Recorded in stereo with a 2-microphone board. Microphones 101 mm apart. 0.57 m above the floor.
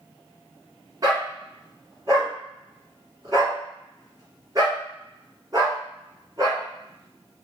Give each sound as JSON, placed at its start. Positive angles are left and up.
{"t": 1.0, "sound": "a dog barking", "side_deg": -35, "distance_m": 1.4}